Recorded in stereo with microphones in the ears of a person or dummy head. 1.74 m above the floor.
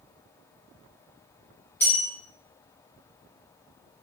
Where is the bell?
15° left (ahead or behind), 0.6 m.